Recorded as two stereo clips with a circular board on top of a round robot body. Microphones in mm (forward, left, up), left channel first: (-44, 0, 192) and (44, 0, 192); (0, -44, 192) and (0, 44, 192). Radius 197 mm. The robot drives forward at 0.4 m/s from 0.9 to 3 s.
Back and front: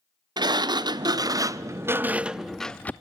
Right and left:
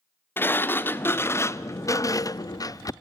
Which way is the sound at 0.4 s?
30° right.